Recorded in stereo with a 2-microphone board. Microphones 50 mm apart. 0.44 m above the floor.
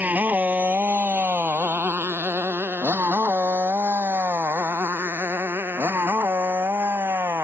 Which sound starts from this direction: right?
A motorcycle, at 0.0 s.